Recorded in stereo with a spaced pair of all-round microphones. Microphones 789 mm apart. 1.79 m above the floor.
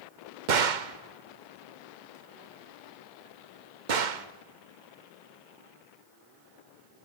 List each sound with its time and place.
0.5 s a gunshot: 70° right (ahead or behind), 1.0 m